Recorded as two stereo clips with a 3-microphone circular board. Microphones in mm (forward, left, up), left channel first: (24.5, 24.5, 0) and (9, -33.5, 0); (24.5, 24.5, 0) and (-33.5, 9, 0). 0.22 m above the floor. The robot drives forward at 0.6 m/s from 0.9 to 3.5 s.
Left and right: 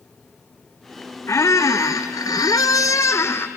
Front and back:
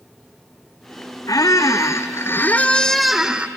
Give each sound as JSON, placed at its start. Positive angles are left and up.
{"t": 1.3, "sound": "a squeak", "azimuth_deg": 35, "distance_m": 1.1}